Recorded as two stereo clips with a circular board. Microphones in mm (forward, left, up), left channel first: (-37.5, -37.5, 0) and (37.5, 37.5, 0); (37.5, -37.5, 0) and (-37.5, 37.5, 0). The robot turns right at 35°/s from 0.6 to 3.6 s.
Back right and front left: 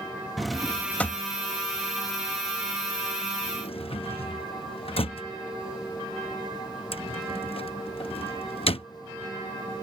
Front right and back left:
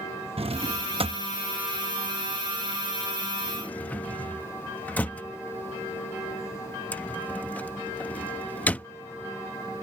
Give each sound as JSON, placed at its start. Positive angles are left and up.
{"t": 0.4, "sound": "a drawer", "azimuth_deg": 135}